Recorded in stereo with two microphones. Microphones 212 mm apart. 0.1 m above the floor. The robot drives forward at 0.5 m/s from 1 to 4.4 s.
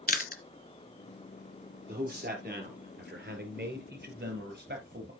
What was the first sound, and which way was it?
Chewing, 40° left (ahead or behind).